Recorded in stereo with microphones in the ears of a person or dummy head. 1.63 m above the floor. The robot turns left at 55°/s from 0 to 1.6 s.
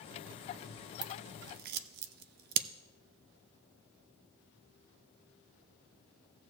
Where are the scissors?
25° right (ahead or behind), 0.6 m; by 2.7 s 55° right (ahead or behind), 0.6 m.